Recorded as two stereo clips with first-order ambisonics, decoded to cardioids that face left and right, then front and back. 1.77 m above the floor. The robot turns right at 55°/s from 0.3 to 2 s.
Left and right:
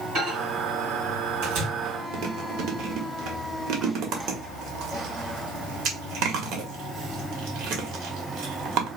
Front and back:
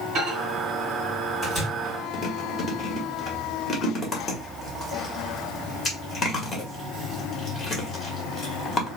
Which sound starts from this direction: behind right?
A microwave, at 0.1 s.